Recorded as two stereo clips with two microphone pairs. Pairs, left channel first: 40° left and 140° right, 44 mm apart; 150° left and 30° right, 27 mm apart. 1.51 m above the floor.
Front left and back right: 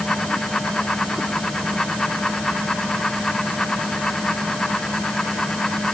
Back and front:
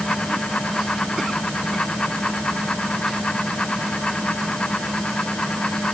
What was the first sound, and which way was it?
Only background noise.